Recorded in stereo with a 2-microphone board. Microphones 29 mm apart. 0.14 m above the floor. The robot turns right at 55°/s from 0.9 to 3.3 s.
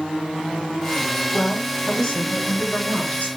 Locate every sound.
1.3 s a woman speaking: straight ahead, 1.9 m; by 3.3 s 105° left, 1.9 m